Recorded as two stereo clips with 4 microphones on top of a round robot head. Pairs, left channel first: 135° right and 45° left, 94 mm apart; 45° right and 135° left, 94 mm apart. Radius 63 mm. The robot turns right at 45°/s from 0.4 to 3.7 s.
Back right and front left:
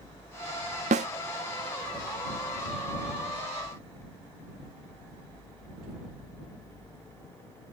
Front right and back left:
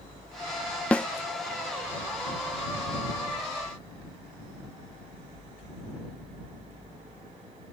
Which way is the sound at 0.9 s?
35° left.